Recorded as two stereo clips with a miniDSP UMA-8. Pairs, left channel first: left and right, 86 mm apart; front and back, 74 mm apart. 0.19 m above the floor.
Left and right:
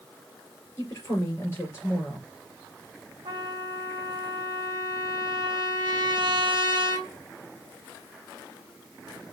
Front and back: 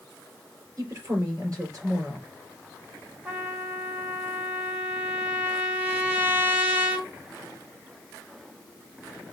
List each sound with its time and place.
0.8 s a woman speaking: 145° left, 4.5 m
3.2 s a trumpet: 115° right, 1.8 m